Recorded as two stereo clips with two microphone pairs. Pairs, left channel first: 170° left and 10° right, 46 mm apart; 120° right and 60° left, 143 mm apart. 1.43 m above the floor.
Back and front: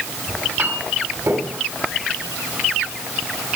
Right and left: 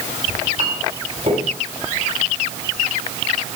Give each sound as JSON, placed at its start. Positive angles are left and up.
{"t": 0.3, "sound": "a clink", "azimuth_deg": 15, "distance_m": 6.5}